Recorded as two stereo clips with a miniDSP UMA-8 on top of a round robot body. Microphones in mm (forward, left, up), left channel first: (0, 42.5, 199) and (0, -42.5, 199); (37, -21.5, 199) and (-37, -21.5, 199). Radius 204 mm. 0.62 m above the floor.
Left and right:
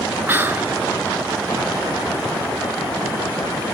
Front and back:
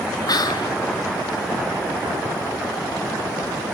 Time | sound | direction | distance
0.3 | whispering | 25° right | 1.5 m